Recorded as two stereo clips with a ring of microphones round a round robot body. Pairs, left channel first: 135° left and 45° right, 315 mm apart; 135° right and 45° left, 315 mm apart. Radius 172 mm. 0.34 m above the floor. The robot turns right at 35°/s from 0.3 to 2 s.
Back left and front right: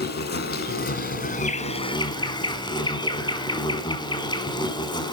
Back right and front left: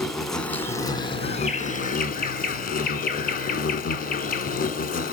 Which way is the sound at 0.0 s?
135° left.